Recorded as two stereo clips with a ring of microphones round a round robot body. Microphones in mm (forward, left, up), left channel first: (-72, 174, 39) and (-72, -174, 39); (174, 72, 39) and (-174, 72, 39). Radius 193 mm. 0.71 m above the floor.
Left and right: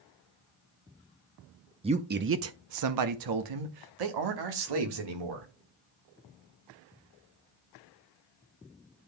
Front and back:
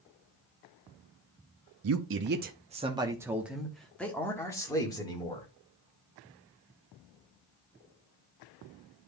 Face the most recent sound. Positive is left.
turn(degrees=-75)